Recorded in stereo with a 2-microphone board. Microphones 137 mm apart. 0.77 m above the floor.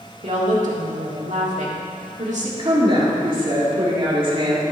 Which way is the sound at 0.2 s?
60° right (ahead or behind).